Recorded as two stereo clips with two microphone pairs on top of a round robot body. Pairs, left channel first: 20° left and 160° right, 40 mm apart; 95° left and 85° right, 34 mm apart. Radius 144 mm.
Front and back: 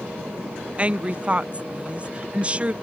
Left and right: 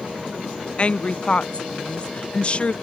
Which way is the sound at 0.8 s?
135° left.